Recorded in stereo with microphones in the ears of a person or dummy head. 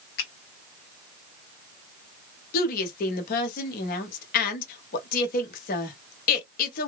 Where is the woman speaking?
55° left (ahead or behind), 1.1 m.